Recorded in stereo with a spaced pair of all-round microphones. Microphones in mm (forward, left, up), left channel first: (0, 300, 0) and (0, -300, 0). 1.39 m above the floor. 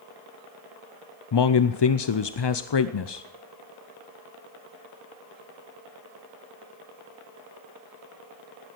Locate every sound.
1.3 s a man speaking: 45° left (ahead or behind), 0.5 m